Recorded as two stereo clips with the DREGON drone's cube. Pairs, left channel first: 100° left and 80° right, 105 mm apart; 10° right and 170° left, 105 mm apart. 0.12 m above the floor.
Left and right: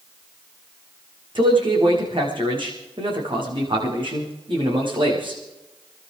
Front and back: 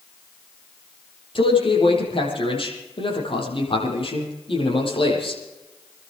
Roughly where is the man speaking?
Ahead right.